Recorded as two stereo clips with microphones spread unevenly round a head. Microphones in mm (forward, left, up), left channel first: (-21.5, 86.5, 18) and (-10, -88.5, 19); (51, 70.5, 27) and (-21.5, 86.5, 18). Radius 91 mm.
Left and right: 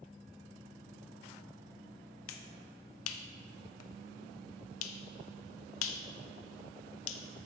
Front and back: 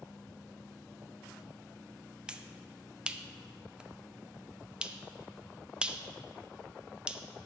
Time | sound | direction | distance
2.3 | a finger snap | 90° left | 0.6 m